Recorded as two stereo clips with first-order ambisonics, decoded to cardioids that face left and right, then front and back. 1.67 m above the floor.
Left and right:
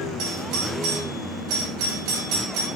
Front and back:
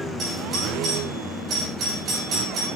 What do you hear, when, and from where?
0.2 s a doorbell: 115° right, 6 m